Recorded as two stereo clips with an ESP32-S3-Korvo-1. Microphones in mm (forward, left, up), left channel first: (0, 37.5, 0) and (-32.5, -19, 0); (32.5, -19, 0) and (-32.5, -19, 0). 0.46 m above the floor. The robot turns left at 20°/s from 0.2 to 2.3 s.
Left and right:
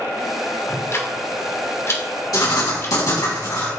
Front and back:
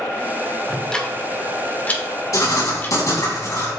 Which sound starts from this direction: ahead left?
Writing, at 2.3 s.